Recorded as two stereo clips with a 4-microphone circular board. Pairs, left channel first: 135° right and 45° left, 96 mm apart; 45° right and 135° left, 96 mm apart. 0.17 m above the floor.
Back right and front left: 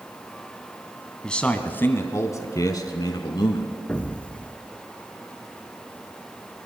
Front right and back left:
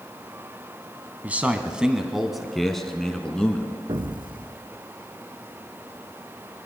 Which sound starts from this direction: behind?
A man speaking, at 1.2 s.